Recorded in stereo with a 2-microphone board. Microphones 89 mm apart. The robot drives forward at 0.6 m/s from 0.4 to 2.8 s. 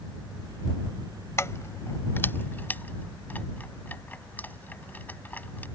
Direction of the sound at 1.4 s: 35° left (ahead or behind).